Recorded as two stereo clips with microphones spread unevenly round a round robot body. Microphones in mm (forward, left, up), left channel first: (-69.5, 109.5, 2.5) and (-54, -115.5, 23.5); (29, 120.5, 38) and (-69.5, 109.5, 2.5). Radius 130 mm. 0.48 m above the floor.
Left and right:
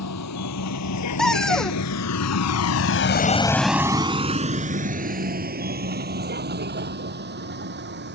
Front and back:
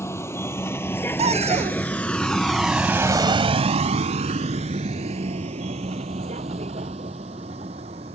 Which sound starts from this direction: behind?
A cupboard door, at 1.2 s.